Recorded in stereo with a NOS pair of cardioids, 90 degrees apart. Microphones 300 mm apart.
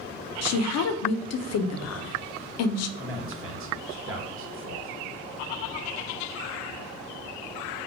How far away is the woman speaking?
About 0.5 m.